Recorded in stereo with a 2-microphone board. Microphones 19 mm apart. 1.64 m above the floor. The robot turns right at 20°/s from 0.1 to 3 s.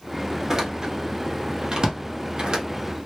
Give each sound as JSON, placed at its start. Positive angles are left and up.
{"t": 0.5, "sound": "a door slam", "side_deg": -25, "distance_m": 0.6}